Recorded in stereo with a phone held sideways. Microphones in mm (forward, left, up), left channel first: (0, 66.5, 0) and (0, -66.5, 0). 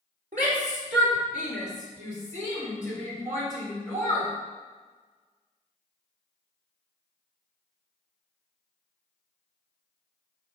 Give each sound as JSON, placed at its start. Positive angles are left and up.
{"t": 0.3, "sound": "a shout", "side_deg": -75, "distance_m": 3.5}